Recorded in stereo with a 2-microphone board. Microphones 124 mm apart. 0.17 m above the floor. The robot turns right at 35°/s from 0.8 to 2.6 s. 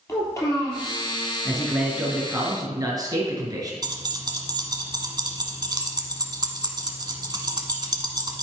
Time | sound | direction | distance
0.1 | a child speaking | 25° left (ahead or behind) | 3.5 m
1.4 | a man speaking | 175° left | 2.5 m
3.8 | keys jangling | 35° right (ahead or behind) | 1.0 m